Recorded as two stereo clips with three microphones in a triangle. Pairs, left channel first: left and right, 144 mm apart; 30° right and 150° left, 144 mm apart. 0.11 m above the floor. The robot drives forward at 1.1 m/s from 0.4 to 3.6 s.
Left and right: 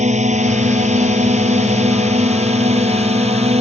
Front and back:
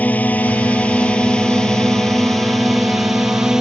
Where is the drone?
105° right; by 3.6 s 125° right.